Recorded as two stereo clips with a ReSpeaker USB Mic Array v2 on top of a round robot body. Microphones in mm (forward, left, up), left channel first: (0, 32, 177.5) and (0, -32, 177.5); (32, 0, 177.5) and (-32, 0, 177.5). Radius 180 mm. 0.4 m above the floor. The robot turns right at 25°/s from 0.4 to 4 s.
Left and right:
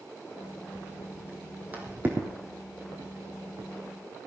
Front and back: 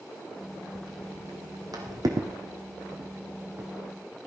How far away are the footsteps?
About 1.4 m.